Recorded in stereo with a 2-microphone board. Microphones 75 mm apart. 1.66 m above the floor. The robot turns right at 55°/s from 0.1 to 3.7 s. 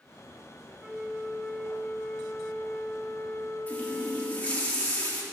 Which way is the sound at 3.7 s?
20° left (ahead or behind).